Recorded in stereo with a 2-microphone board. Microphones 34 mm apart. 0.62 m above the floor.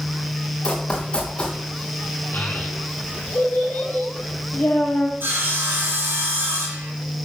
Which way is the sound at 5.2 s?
80° right.